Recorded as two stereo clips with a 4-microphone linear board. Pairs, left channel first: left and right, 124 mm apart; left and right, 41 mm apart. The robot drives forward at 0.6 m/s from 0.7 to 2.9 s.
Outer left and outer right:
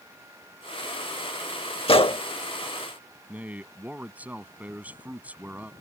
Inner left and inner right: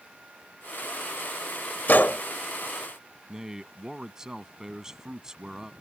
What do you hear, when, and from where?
1.9 s a gunshot: 50° left (ahead or behind)
3.3 s a man speaking: 15° right (ahead or behind)